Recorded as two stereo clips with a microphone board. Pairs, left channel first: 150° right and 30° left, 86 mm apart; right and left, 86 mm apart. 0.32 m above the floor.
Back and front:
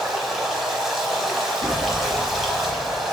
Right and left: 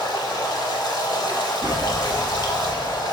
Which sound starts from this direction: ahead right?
Running water, at 0.0 s.